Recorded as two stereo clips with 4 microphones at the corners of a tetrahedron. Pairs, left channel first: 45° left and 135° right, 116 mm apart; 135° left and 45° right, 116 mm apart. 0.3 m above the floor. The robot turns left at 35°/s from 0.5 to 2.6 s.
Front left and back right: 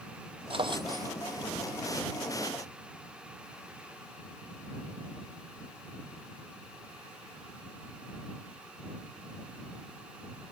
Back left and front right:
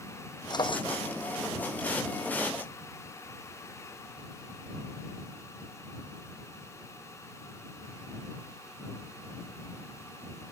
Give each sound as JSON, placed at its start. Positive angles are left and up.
{"t": 0.5, "sound": "a drawer", "azimuth_deg": -175}